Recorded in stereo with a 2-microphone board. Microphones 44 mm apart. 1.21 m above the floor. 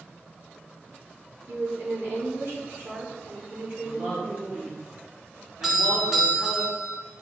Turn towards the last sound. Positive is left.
turn(degrees=-10)  # may be behind; listen again after turning